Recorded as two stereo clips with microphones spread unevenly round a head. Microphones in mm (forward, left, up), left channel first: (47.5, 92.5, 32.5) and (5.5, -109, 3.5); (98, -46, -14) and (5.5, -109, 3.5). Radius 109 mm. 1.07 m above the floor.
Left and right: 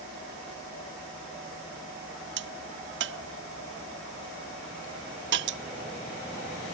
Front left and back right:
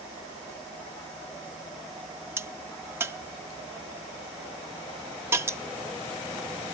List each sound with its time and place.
2.4 s a crack: 75° right